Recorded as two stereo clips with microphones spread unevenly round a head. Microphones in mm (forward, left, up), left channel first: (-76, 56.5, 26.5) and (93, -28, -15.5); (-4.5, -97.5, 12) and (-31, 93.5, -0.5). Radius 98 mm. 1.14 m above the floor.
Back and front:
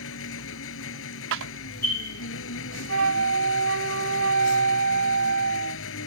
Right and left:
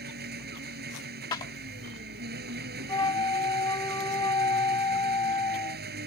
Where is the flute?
10° right.